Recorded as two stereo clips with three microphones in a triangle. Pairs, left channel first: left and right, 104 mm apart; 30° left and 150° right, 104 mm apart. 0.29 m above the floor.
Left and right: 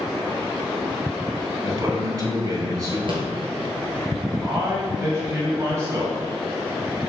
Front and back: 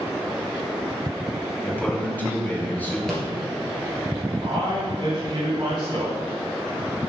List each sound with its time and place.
1.6 s a man speaking: 40° right, 1.9 m
3.1 s a rattle: 55° right, 2 m
4.4 s a man speaking: 140° right, 2 m